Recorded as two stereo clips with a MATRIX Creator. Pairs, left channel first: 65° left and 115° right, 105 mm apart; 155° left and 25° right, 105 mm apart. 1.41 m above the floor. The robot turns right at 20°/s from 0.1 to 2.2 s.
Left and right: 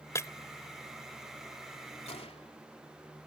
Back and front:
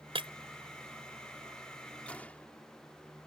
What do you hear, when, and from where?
0.1 s breaking glass: 5° left; by 0.3 s 10° left
2.1 s a gunshot: 80° left